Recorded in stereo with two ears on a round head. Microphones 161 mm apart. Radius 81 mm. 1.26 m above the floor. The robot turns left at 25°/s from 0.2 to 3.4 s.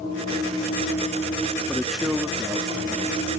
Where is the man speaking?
5° left; by 3.3 s 35° right.